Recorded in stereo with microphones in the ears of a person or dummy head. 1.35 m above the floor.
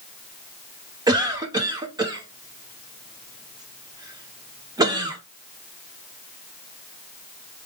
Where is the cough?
20° right (ahead or behind), 0.8 m.